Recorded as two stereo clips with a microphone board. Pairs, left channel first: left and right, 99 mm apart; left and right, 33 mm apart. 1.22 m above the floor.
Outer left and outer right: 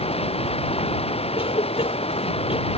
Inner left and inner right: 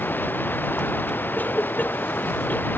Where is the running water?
85° left.